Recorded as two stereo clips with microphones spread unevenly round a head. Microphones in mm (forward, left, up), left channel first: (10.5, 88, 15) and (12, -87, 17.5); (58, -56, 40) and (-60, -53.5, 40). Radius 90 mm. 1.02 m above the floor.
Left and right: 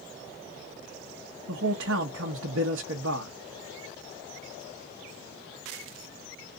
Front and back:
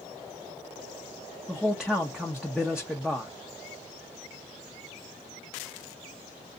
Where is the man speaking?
95° right, 0.9 m.